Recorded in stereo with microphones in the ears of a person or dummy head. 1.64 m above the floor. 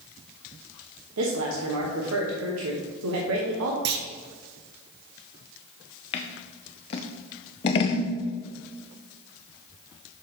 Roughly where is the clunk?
Right.